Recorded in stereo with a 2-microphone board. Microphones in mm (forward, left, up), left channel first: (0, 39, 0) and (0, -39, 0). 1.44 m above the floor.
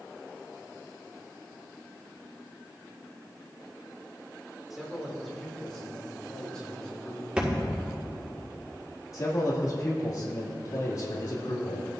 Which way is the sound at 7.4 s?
15° right (ahead or behind).